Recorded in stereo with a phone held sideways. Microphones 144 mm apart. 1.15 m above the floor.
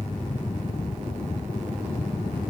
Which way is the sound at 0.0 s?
50° left (ahead or behind).